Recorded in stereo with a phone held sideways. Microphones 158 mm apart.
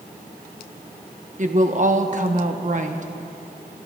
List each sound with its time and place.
1.4 s a woman speaking: 50° right (ahead or behind), 1.0 m